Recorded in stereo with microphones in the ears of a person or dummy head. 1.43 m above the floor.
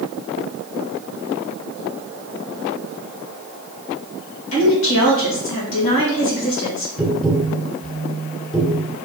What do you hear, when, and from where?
4.5 s a woman speaking: 85° left, 2 m
7.0 s tapping: centre (ahead or behind), 1.3 m